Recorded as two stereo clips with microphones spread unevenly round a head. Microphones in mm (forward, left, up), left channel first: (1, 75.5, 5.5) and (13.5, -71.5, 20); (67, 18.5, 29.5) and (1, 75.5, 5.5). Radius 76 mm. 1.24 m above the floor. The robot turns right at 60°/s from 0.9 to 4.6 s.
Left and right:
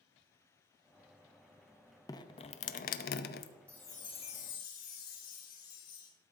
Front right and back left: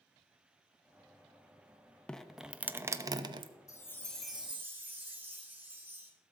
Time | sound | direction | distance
2.1 | dripping | 25° left | 0.7 m
3.7 | a chime | 10° left | 2.5 m